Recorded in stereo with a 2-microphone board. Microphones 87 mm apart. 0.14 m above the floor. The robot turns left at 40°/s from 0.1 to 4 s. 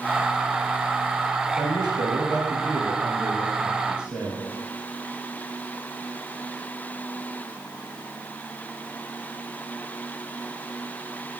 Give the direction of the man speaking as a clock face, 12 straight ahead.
2 o'clock.